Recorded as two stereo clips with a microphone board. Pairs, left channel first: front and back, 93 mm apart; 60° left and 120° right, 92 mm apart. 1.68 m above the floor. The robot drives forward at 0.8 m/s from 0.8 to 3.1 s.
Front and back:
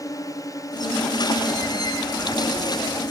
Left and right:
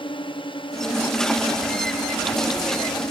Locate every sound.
0.0 s a drone: 50° left